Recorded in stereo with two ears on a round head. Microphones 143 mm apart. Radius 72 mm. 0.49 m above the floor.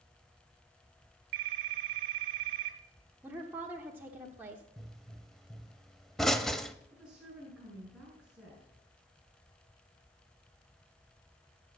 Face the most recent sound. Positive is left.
turn(degrees=-5)  # may be behind; listen again after turning